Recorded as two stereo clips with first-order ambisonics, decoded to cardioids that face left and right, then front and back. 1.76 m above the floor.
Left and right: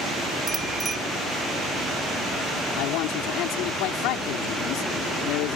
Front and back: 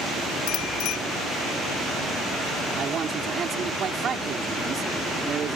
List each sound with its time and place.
0.5 s a bicycle bell: 20° right
2.8 s a man speaking: 115° left